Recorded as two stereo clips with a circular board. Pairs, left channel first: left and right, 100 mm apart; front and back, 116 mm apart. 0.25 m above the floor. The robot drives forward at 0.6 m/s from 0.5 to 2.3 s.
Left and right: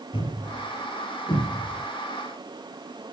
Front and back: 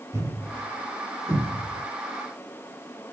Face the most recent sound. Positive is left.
turn(degrees=125)